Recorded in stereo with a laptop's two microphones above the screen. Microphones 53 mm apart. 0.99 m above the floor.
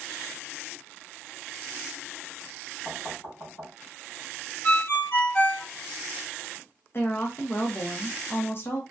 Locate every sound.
2.9 s knocking: 60° left (ahead or behind), 2 m
4.6 s a ringtone: 50° left (ahead or behind), 1.1 m
6.9 s a woman speaking: 45° left (ahead or behind), 0.9 m